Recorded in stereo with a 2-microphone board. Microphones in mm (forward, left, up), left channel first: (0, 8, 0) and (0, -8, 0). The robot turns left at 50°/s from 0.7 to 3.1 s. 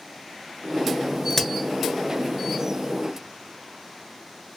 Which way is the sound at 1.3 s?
15° left (ahead or behind).